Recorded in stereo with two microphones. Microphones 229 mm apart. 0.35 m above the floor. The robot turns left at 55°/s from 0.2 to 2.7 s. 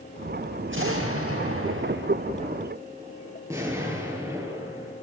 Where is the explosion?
55° right, 6.5 m; by 4.9 s 165° right, 6.5 m.